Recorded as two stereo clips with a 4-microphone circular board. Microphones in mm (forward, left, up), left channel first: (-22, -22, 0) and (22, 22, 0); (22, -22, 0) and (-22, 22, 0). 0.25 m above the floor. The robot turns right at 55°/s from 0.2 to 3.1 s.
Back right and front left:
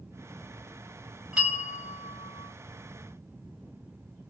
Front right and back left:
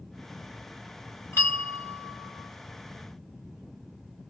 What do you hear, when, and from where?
1.3 s a bell: 20° right, 1.5 m; by 2.5 s 45° left, 1.5 m